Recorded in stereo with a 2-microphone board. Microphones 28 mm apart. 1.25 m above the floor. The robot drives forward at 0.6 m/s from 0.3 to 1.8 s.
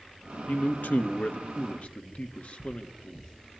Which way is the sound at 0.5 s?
80° left.